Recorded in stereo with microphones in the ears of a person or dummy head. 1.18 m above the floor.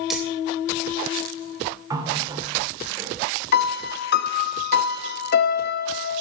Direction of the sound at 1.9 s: 20° right (ahead or behind).